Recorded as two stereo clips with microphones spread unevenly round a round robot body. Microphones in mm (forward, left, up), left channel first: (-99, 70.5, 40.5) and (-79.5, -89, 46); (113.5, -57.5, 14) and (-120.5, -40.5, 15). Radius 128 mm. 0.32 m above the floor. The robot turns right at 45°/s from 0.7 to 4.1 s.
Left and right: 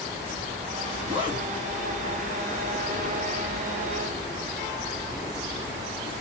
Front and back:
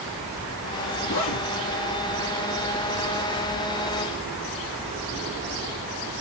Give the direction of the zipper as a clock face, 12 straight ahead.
1 o'clock.